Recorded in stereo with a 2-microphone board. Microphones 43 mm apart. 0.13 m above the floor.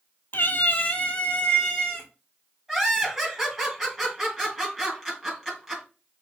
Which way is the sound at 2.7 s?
15° right (ahead or behind).